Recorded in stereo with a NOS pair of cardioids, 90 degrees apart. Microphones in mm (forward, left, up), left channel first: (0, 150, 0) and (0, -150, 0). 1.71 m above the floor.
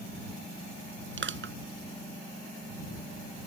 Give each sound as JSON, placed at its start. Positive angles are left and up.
{"t": 1.2, "sound": "crushing", "azimuth_deg": -40}